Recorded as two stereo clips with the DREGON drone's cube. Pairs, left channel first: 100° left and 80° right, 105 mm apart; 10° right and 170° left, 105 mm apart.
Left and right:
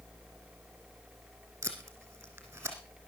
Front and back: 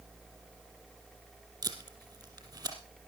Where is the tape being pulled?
145° right, 2.5 m.